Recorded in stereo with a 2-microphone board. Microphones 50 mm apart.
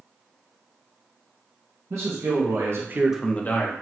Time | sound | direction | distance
1.9 | a man speaking | 80° right | 2.0 m